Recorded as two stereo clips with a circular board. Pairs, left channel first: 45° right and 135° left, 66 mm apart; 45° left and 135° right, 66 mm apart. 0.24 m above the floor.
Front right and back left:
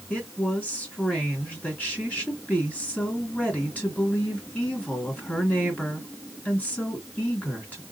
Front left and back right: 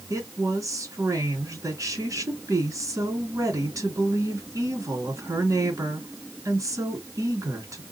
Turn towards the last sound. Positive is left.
turn(degrees=-110)